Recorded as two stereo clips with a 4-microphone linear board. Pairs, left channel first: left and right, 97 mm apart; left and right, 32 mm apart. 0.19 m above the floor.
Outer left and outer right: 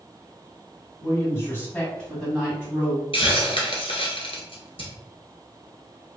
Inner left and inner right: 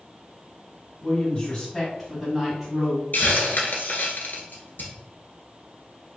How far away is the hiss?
About 1.0 m.